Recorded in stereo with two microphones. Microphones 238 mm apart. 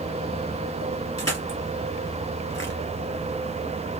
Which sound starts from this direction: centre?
Crushing, at 1.2 s.